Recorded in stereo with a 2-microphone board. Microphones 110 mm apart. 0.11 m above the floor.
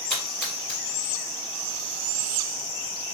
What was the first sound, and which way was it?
A splash, 10° left (ahead or behind).